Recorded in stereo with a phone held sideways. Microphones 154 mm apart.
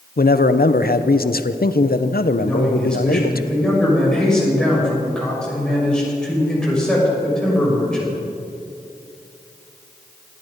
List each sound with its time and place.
0.2 s a man speaking: 70° left (ahead or behind), 0.8 m
2.4 s a man speaking: 5° left (ahead or behind), 6 m